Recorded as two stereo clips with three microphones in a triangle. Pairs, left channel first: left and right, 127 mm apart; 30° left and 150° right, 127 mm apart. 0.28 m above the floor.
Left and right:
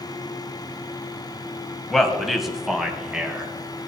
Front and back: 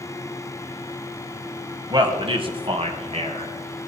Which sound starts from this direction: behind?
A man speaking, at 1.9 s.